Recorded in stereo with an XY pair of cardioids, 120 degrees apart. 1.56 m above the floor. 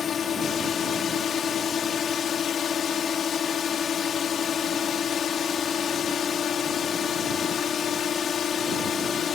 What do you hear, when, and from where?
0.0 s a drone: 45° left